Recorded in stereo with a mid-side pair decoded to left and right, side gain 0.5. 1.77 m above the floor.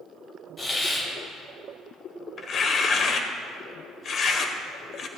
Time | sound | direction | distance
0.6 | a hiss | 25° left | 4 m
2.4 | tearing paper | 50° left | 1.3 m